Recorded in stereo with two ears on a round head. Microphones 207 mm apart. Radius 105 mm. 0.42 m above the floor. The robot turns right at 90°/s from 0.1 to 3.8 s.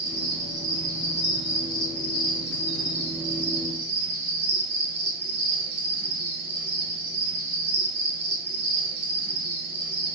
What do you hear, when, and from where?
0.0 s an insect: 65° right, 1.4 m; by 10.2 s 90° right, 1.4 m